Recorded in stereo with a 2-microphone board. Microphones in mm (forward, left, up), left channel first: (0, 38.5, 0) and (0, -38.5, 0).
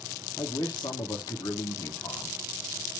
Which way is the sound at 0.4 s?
55° left (ahead or behind).